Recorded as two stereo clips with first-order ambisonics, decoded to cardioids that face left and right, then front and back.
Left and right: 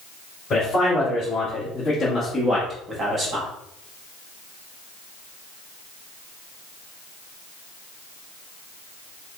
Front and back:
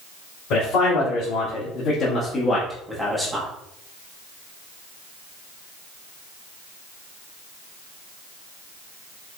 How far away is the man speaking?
About 2 m.